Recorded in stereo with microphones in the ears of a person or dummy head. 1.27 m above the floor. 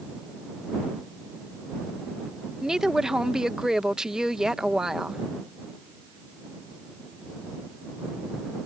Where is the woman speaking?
Centre (ahead or behind).